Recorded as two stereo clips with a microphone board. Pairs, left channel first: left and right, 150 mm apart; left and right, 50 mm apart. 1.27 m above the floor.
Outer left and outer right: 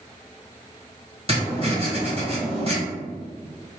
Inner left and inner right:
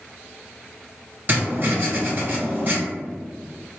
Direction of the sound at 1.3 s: 40° right (ahead or behind).